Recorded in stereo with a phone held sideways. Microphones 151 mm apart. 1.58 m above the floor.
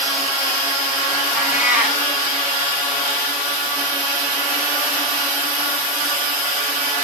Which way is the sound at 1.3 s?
10° right (ahead or behind).